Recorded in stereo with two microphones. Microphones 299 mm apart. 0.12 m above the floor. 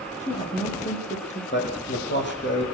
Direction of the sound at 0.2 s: 25° left (ahead or behind).